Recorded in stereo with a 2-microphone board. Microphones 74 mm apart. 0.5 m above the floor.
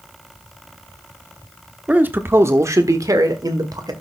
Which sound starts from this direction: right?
A man speaking, at 1.9 s.